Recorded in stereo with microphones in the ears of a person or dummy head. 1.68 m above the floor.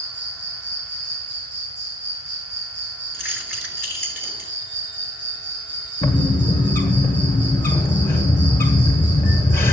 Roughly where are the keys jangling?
Centre.